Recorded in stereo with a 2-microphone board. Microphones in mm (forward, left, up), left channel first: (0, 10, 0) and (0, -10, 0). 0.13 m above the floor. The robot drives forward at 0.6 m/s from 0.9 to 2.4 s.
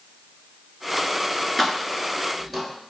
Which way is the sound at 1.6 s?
15° left (ahead or behind).